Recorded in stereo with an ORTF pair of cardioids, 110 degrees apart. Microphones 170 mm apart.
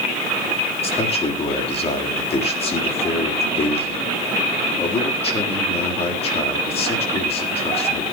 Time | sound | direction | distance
0.8 | a man speaking | 35° left | 4 m